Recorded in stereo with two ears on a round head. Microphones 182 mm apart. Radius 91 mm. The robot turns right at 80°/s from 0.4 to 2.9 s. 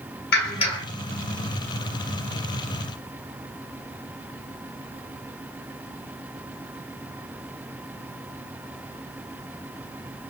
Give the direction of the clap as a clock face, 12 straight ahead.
8 o'clock.